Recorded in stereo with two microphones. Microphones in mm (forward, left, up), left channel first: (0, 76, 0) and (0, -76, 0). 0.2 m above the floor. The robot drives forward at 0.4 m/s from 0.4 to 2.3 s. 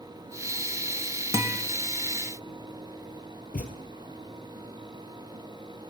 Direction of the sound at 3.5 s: 70° left (ahead or behind).